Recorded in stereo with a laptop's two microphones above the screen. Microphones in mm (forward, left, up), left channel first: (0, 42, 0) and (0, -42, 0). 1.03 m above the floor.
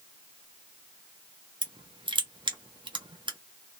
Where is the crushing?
70° right (ahead or behind), 0.5 m.